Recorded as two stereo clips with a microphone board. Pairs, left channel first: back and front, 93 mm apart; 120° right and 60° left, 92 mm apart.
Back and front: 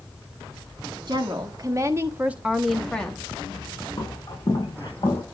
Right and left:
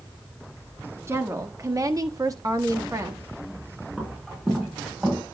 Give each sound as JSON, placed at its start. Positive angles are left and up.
{"t": 1.1, "sound": "a woman speaking", "azimuth_deg": 10, "distance_m": 1.5}
{"t": 4.0, "sound": "footsteps", "azimuth_deg": 140, "distance_m": 9.0}